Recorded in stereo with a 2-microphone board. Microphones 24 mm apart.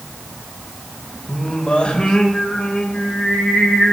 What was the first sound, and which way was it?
Singing, 55° left (ahead or behind).